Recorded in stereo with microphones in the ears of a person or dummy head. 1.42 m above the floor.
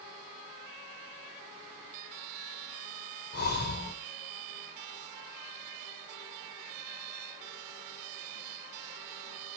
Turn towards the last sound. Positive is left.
turn(degrees=50)  # may be behind; listen again after turning